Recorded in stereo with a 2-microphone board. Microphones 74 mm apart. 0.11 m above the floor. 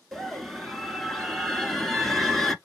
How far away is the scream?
About 1.2 m.